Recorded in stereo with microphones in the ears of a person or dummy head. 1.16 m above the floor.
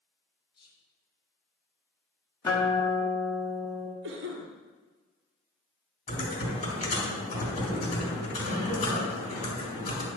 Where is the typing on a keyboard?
40° left (ahead or behind), 3.5 m.